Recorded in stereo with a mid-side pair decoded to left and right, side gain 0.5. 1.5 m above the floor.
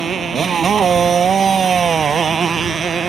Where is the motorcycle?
40° right; by 3.1 s 35° right.